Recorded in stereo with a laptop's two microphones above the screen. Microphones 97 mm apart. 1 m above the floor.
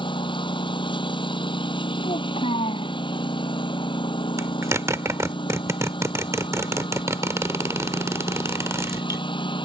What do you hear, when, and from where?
0.0 s a lawn mower: 55° left (ahead or behind)
2.0 s a child speaking: 75° left (ahead or behind)
4.4 s a zipper: 30° right (ahead or behind)